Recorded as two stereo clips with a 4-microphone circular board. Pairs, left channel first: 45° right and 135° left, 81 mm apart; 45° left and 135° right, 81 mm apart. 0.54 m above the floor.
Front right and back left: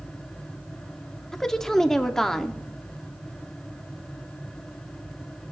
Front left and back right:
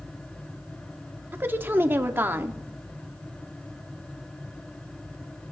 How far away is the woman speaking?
About 0.7 m.